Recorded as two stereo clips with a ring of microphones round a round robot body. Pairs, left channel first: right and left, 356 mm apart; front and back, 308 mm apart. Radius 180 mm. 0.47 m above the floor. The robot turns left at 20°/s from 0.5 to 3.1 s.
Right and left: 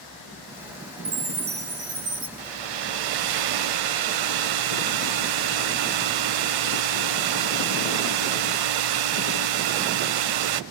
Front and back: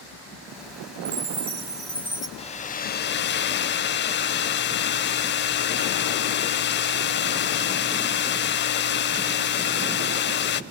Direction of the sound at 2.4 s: 75° left.